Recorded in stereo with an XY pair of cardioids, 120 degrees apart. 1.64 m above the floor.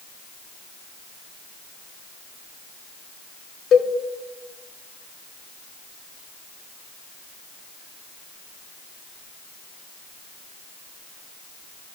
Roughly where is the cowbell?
Ahead left.